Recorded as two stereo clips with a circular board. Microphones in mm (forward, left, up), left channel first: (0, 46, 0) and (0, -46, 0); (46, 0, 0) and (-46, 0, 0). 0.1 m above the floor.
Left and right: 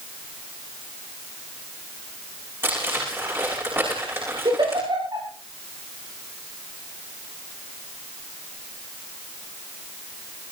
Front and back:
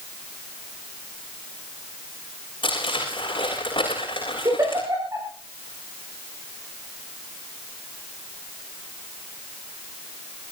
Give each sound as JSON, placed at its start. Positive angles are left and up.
{"t": 2.6, "sound": "crumpling", "azimuth_deg": -25, "distance_m": 9.0}
{"t": 4.5, "sound": "a giggle", "azimuth_deg": -125, "distance_m": 8.0}